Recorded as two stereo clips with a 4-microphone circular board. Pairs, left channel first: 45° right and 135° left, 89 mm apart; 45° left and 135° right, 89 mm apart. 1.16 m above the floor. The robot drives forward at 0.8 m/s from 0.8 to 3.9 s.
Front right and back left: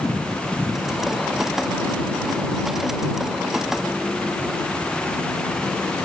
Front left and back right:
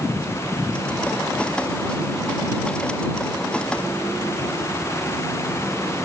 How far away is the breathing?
No breathing in this recording.